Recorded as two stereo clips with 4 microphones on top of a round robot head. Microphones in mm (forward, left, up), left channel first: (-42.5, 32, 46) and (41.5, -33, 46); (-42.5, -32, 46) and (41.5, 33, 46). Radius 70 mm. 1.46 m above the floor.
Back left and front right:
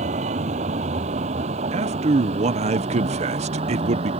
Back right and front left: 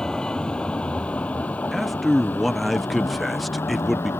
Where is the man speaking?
55° right.